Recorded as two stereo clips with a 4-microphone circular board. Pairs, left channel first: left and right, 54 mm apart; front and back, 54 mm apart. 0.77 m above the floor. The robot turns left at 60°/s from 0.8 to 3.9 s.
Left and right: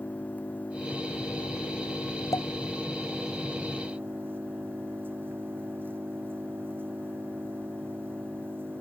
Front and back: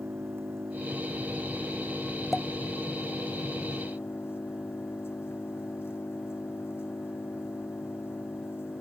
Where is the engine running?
145° left; by 8.8 s 40° right.